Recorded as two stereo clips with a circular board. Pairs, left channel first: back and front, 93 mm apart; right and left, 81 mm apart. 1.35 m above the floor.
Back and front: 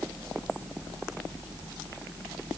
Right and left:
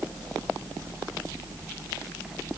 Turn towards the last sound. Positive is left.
No sound to turn to.